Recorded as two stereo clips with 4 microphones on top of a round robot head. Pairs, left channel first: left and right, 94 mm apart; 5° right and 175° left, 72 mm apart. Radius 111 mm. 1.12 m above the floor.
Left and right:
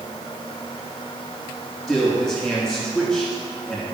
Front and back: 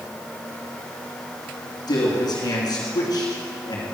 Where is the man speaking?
Straight ahead, 2.5 m.